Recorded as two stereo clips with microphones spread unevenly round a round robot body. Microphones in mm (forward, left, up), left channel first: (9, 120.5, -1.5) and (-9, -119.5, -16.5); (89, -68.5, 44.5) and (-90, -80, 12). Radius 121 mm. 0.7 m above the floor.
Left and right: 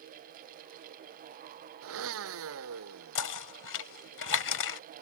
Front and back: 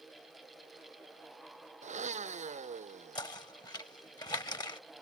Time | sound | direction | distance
1.8 | a blender | 125° right | ?
3.1 | knocking | 80° left | ?